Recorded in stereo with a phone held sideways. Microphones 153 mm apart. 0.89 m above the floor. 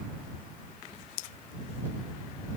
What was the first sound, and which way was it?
Only background noise.